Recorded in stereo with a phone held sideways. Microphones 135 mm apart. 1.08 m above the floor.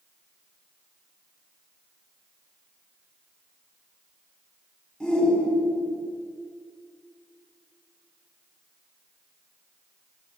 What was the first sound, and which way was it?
A shout, 5° left (ahead or behind).